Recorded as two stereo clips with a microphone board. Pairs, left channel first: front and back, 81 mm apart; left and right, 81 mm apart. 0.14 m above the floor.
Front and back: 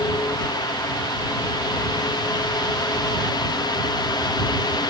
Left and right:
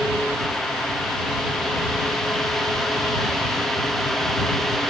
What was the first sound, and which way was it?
Only background noise.